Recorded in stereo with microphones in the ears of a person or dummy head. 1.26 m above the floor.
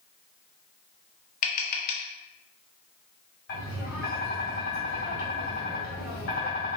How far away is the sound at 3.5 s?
About 1.5 m.